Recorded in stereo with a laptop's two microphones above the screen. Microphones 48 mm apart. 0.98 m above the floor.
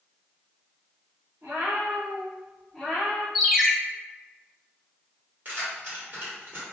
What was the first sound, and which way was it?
A cat meowing, 60° right (ahead or behind).